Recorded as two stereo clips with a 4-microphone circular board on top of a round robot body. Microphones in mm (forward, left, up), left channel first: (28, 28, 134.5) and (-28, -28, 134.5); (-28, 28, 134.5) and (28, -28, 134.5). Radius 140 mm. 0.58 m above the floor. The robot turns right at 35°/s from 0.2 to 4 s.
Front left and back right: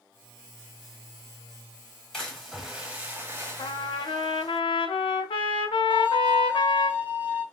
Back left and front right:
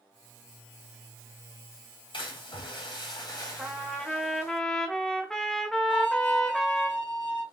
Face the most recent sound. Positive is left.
turn(degrees=155)